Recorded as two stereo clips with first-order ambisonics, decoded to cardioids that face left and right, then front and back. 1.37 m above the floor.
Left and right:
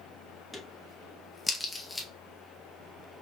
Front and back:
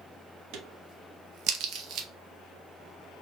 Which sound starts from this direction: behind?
A crack, at 0.5 s.